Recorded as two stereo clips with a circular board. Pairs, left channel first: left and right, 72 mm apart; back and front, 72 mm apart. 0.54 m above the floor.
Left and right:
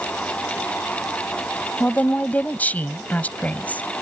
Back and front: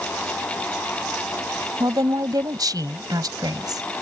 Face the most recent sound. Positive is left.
turn(degrees=25)